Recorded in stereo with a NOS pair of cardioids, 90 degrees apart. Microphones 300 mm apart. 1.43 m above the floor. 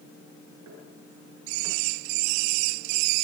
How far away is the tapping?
About 8.5 m.